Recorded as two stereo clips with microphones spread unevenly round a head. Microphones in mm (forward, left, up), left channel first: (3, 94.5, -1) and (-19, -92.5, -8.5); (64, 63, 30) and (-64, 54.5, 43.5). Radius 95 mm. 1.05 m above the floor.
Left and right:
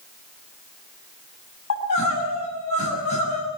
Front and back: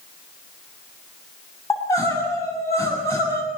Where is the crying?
70° left, 7 m.